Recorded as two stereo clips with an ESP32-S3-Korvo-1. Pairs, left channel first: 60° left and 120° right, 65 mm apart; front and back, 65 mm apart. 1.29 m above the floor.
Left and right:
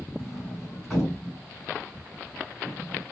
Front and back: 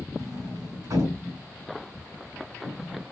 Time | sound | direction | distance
0.2 | a sliding door | 150° left | 3 m